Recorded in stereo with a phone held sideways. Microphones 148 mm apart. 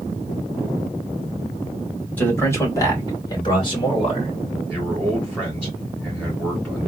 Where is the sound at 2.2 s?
10° left (ahead or behind), 1.8 m; by 4.3 s 40° left (ahead or behind), 2.5 m.